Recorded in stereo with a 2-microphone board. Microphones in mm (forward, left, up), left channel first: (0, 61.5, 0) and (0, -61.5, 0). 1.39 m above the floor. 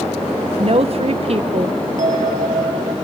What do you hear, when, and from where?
0.6 s a woman speaking: 55° right (ahead or behind), 1.3 m
2.0 s a bell: 75° right (ahead or behind), 2.5 m